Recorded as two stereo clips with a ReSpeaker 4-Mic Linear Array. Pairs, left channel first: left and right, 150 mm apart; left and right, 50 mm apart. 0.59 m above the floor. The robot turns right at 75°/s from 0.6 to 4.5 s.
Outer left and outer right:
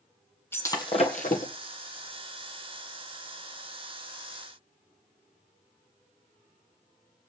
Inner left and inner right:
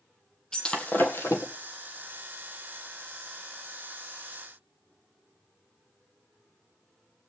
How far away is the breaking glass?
About 1.8 m.